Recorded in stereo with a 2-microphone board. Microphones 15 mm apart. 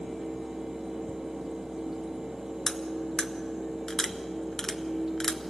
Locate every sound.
2.7 s cutlery clinking: 40° left (ahead or behind), 0.9 m